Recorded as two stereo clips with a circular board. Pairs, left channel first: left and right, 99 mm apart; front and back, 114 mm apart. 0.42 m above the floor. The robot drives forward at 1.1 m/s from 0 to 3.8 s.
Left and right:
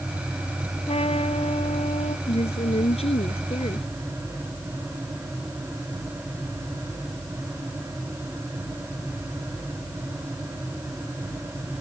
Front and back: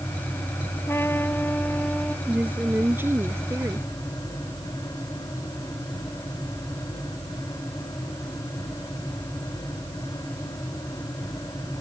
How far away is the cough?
No cough in this recording.